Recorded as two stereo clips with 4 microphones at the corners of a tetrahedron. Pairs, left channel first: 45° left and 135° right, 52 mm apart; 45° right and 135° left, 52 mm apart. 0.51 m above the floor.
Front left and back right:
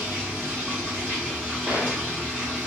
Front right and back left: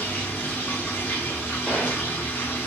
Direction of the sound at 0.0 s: 85° right.